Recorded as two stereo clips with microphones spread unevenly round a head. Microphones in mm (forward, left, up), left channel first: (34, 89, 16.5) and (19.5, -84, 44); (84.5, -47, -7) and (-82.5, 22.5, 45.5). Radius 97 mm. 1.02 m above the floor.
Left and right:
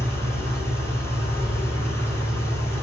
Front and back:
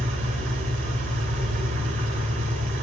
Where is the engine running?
165° left, 2.5 m.